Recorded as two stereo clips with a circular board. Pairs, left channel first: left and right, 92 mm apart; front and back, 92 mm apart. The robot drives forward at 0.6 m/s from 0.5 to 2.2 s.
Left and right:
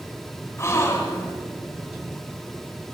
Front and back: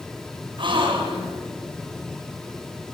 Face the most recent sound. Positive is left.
turn(degrees=155)